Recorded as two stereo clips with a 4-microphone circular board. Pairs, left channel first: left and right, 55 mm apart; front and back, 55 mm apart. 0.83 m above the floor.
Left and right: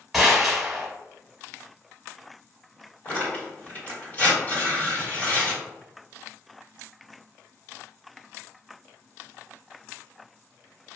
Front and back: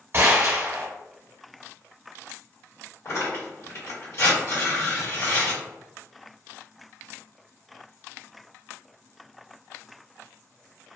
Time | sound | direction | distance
0.1 | a gunshot | 175° right | 0.9 m
3.0 | tearing paper | 30° left | 1.7 m